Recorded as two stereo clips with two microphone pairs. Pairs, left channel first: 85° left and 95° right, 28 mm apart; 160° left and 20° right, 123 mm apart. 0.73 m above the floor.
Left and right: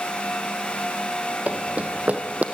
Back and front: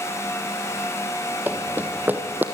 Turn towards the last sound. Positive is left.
turn(degrees=-95)